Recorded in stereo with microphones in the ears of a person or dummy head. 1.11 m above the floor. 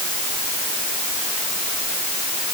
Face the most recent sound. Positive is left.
No sound to turn to.